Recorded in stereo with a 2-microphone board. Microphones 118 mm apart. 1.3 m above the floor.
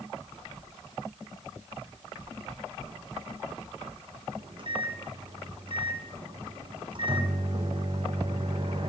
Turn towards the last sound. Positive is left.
turn(degrees=-45)  # may be behind; listen again after turning